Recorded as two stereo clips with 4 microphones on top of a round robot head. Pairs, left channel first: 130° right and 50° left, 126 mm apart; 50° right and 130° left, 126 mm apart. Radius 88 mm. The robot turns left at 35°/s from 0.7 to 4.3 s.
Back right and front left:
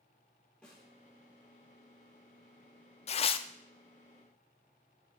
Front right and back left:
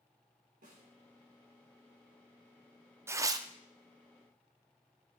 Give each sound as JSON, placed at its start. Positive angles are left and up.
{"t": 0.6, "sound": "a snare drum", "azimuth_deg": 145, "distance_m": 4.0}
{"t": 3.1, "sound": "tearing paper", "azimuth_deg": -160, "distance_m": 0.6}